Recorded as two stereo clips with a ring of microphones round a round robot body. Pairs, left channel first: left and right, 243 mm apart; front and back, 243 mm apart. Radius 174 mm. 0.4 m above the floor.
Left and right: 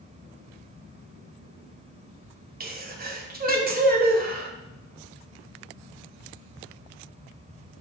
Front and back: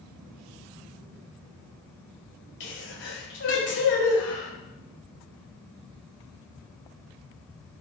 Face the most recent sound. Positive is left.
turn(degrees=-45)